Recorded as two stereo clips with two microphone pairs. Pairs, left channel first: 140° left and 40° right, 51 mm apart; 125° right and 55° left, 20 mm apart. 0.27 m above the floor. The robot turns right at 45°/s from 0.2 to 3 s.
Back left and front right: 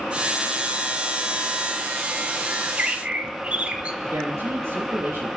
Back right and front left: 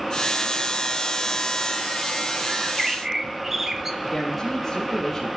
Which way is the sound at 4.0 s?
45° right.